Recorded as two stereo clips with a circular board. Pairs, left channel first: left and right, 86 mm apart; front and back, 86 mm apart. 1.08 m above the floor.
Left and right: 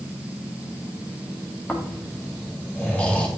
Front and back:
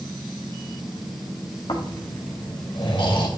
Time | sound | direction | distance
1.7 | snoring | 15° left | 1.9 m